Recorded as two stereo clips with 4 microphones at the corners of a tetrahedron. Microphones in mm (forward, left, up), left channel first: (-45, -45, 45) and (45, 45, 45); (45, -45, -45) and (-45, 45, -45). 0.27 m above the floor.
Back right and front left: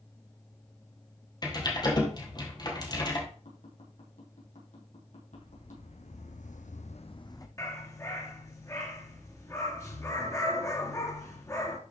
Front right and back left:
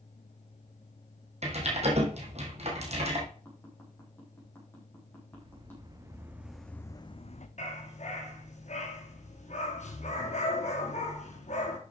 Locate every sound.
1.4 s typing on a keyboard: 170° left, 2.5 m
3.5 s tapping: 120° right, 4.5 m
5.3 s footsteps: 175° right, 2 m; by 7.5 s 70° right, 1.1 m
7.6 s a dog barking: 70° right, 2 m